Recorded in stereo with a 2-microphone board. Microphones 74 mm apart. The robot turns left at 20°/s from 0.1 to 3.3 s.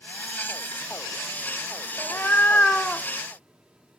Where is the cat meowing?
35° left (ahead or behind), 0.5 m; by 3.1 s 15° left (ahead or behind), 0.5 m.